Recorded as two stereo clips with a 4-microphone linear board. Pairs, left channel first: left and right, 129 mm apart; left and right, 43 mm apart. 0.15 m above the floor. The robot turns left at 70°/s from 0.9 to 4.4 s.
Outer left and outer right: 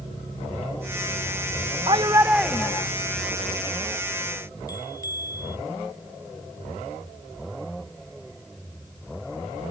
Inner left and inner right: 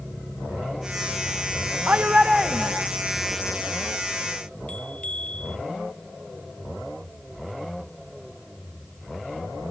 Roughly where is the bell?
Left.